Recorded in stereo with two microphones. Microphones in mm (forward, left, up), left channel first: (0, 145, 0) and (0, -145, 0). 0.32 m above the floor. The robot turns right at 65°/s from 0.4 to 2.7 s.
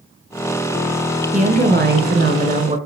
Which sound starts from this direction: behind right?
A woman speaking, at 1.3 s.